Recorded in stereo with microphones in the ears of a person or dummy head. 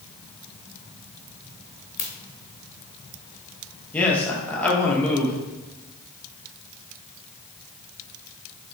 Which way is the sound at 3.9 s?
10° left (ahead or behind).